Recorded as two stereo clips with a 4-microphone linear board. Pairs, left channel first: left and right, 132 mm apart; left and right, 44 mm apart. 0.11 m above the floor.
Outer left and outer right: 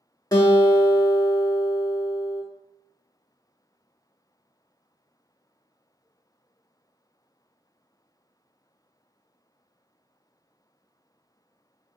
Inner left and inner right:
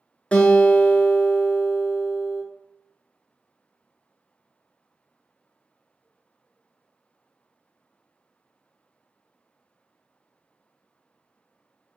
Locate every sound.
0.3 s a guitar: 30° left (ahead or behind), 0.5 m